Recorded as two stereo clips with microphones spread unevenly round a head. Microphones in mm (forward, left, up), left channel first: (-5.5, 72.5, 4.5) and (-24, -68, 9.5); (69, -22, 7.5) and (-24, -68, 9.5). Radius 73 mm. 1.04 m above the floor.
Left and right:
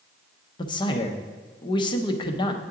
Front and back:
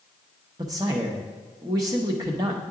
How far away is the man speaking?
About 0.6 m.